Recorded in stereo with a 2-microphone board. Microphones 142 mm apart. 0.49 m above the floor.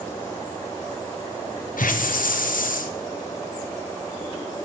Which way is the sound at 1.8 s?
75° left (ahead or behind).